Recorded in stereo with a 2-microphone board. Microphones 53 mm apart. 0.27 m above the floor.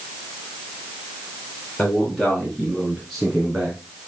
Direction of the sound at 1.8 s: 15° left (ahead or behind).